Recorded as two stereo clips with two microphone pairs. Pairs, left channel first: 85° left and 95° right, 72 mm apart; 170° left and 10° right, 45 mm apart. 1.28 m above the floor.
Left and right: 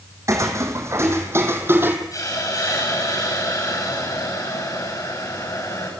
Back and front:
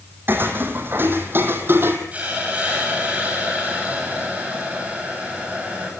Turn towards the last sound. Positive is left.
turn(degrees=45)